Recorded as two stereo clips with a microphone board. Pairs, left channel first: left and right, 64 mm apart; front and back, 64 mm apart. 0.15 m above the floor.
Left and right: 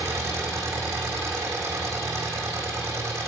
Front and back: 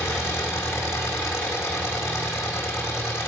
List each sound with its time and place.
0.0 s an engine running: 40° right, 3.5 m